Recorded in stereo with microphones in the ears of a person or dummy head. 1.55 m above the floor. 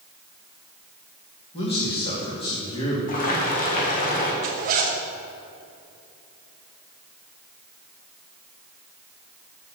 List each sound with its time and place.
1.5 s a man speaking: 30° left (ahead or behind), 2.5 m
3.1 s boiling: 40° left (ahead or behind), 1.9 m
4.4 s a zipper: 45° right (ahead or behind), 1.2 m